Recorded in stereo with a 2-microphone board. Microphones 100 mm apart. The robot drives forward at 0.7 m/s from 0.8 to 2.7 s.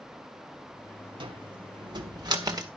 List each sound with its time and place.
1.2 s a cupboard door: 55° right (ahead or behind), 1.4 m; by 2.7 s 40° right (ahead or behind), 1.8 m